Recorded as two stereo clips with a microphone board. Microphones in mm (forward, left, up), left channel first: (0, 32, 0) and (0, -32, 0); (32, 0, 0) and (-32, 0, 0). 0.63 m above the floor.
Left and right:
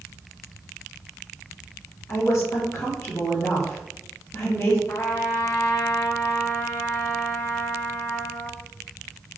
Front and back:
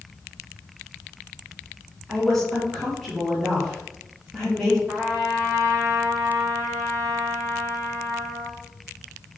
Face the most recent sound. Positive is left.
turn(degrees=115)